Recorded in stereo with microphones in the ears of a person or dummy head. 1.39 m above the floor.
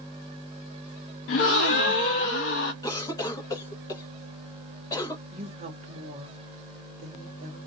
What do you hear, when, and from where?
1.3 s a gasp: 45° left (ahead or behind), 0.5 m
2.8 s a cough: 15° left (ahead or behind), 0.9 m
5.3 s a woman speaking: 40° right (ahead or behind), 0.9 m